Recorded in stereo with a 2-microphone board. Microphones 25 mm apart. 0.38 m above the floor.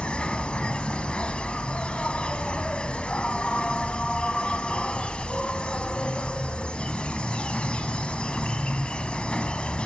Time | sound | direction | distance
0.0 | an insect | 45° left (ahead or behind) | 1.3 m